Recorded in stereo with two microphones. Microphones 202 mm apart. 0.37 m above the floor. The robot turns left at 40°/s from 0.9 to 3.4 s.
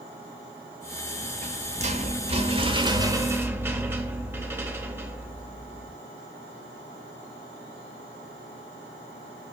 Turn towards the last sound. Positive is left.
turn(degrees=-160)